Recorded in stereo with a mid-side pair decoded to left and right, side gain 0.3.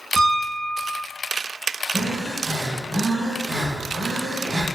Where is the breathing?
40° right, 1.2 m.